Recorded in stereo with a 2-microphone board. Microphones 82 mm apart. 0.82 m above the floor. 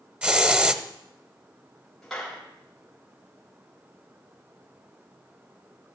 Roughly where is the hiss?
Centre.